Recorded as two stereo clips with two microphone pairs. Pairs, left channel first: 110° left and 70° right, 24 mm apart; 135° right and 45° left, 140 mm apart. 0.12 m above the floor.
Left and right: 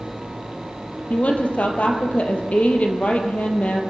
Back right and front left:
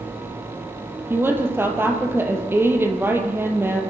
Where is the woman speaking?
115° left, 3.5 m.